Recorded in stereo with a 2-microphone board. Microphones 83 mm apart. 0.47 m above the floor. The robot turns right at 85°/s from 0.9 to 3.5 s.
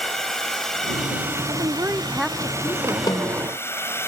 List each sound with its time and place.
0.0 s a drone: 175° left; by 4.1 s 35° left
1.5 s a woman speaking: 65° right; by 3.0 s 60° left
3.1 s a snare drum: 90° left; by 3.5 s 130° left